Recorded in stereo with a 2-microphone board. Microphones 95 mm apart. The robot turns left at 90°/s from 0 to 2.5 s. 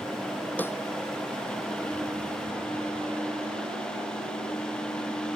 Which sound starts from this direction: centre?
A snare drum, at 0.6 s.